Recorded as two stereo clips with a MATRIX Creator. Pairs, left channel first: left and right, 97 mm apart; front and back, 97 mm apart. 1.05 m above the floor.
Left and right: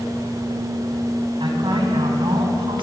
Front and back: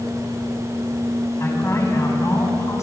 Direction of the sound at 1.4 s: 60° right.